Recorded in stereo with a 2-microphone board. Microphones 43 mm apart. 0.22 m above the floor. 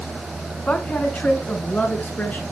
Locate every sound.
0.7 s a woman speaking: 30° left (ahead or behind), 2 m; by 2.4 s 40° left (ahead or behind), 3 m